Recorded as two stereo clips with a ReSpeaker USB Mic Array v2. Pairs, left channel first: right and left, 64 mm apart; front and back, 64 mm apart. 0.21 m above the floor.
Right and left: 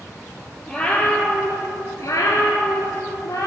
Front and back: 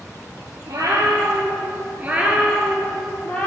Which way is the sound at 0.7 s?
170° right.